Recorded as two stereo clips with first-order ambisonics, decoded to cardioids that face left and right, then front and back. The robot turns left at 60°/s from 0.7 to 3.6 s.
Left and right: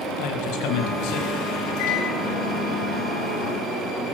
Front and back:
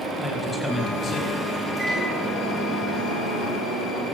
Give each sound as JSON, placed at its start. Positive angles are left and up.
{"t": 0.2, "sound": "a man speaking", "azimuth_deg": 90, "distance_m": 6.0}
{"t": 1.8, "sound": "a microwave", "azimuth_deg": 105, "distance_m": 9.5}